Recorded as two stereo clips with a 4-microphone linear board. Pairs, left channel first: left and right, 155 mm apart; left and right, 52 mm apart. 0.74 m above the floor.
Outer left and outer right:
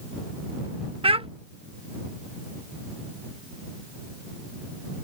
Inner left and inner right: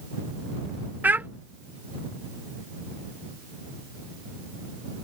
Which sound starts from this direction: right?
A child speaking, at 1.0 s.